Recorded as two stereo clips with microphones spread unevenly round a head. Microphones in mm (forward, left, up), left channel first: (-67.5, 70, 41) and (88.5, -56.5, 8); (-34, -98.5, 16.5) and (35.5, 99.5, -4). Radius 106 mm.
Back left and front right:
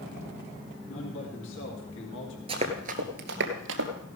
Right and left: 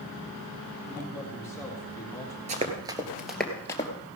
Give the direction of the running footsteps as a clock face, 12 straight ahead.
11 o'clock.